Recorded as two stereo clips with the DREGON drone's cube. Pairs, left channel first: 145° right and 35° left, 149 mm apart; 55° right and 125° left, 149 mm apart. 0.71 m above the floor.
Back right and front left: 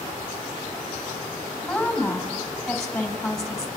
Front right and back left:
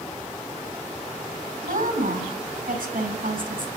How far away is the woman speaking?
About 4 m.